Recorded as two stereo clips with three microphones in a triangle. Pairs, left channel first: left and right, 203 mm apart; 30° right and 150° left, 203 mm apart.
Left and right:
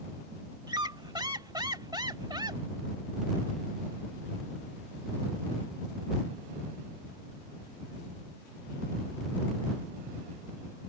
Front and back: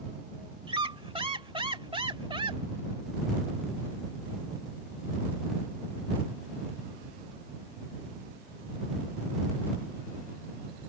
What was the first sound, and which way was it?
A squeak, 150° right.